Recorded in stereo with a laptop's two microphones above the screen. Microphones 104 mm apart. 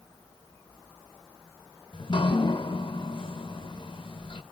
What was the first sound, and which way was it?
Dripping, 50° left (ahead or behind).